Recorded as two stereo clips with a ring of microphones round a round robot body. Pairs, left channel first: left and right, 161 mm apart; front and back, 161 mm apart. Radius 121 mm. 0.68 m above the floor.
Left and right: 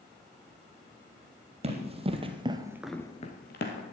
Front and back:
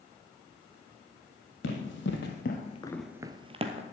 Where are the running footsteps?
40° right, 2 m; by 3.8 s 130° left, 1.5 m.